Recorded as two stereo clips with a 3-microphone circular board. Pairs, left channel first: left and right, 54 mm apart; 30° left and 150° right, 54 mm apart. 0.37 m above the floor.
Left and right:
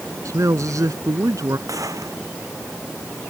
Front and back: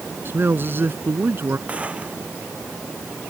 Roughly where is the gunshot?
Right.